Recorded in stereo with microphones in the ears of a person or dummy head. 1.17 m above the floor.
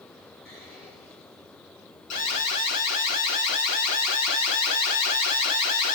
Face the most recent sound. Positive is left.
turn(degrees=45)  # may be behind; listen again after turning